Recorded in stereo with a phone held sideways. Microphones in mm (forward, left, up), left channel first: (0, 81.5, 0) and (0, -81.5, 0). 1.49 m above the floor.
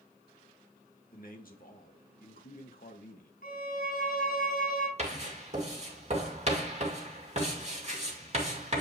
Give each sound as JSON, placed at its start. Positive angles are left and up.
{"t": 1.1, "sound": "a man speaking", "side_deg": 65, "distance_m": 1.6}
{"t": 3.4, "sound": "a violin", "side_deg": 70, "distance_m": 3.0}
{"t": 5.0, "sound": "writing", "side_deg": -45, "distance_m": 2.5}